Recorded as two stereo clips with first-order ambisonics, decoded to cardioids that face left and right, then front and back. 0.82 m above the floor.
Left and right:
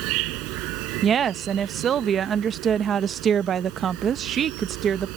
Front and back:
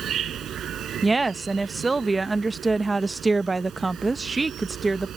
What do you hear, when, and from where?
0.0 s an insect: 120° right
1.0 s a woman speaking: 110° right